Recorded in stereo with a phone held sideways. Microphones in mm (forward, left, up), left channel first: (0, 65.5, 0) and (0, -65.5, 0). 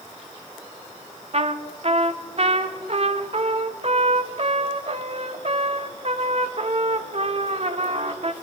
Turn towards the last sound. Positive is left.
turn(degrees=-50)  # may be behind; listen again after turning